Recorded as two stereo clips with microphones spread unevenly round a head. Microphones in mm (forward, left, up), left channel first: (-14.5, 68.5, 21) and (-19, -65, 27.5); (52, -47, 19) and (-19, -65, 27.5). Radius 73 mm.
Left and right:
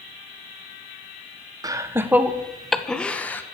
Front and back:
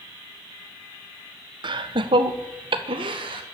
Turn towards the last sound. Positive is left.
turn(degrees=165)